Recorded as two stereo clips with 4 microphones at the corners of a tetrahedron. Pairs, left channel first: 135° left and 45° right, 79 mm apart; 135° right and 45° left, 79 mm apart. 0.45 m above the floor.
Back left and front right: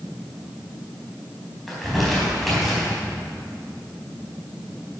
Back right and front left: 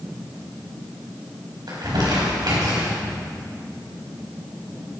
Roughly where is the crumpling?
Ahead left.